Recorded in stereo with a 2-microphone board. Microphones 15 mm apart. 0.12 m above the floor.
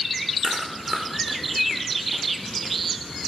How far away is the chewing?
About 2.5 m.